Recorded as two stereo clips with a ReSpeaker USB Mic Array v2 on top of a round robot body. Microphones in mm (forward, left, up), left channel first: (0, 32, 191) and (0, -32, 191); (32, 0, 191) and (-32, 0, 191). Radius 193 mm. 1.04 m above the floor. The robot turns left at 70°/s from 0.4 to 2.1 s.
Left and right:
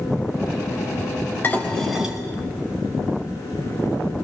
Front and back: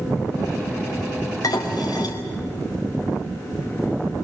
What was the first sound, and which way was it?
Dishes clattering, 30° left.